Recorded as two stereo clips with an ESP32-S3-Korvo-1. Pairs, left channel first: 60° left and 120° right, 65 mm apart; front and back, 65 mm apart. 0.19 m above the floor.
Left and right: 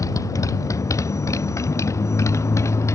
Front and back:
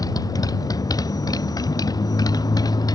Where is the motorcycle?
25° left; by 3.0 s 15° left.